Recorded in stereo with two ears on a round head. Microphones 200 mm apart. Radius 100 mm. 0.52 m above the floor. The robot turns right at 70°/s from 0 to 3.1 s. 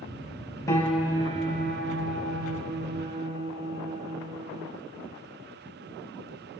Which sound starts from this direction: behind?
A piano, at 0.7 s.